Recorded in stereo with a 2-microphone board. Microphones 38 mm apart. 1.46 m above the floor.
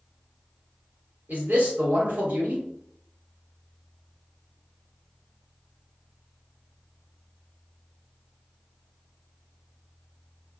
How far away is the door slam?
I don't hear a door slam.